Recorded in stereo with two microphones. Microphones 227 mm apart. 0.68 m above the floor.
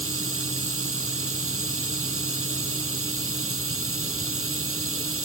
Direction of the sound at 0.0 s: 70° right (ahead or behind).